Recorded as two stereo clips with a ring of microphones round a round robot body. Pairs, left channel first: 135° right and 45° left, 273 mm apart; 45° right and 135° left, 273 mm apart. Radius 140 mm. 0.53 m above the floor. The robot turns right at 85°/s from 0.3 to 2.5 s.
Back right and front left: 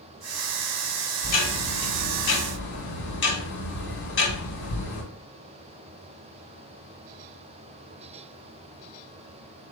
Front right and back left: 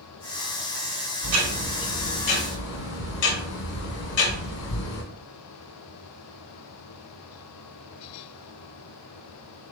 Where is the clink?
No clink in this recording.